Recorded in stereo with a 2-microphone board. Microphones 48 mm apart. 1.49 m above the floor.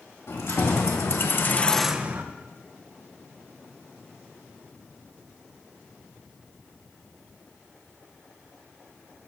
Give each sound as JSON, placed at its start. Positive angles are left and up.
{"t": 0.3, "sound": "keys jangling", "side_deg": 65, "distance_m": 1.9}